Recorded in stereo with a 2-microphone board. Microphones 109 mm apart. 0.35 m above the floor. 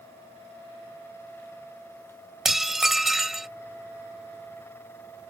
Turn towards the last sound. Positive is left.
turn(degrees=0)  # may be behind; listen again after turning